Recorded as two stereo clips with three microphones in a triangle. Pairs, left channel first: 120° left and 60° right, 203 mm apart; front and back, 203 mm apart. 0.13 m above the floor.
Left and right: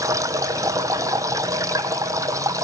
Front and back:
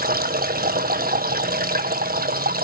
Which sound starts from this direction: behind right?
Running water, at 0.0 s.